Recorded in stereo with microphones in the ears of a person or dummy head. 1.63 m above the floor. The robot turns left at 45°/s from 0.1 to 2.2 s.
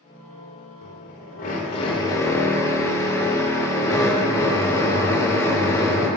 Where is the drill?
80° left, 4 m; by 6.1 s 20° left, 4 m.